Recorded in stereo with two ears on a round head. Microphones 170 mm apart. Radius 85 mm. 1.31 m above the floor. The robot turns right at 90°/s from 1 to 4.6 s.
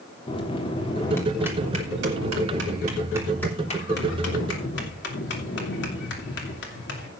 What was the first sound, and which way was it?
A bell, 150° left.